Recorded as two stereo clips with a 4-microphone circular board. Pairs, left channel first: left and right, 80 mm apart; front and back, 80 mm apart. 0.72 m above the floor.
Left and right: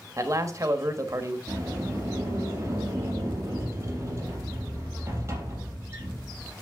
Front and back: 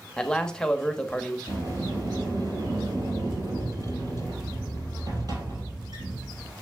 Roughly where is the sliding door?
Behind right.